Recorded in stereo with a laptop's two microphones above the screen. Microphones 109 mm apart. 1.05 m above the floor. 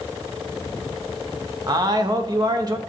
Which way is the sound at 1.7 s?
35° right (ahead or behind).